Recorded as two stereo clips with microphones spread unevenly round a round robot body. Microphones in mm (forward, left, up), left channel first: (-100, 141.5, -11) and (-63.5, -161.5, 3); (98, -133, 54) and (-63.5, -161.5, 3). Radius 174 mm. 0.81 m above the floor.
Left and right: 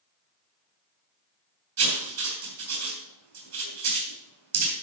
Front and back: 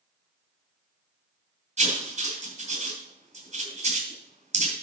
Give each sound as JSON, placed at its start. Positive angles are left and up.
{"t": 1.8, "sound": "writing", "azimuth_deg": -120, "distance_m": 3.5}